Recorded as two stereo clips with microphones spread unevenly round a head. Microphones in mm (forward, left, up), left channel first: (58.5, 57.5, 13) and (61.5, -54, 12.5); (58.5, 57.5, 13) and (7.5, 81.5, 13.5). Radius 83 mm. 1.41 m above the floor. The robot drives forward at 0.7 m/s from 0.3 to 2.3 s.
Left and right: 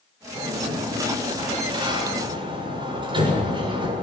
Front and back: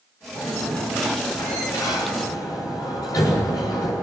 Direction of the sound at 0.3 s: 40° right.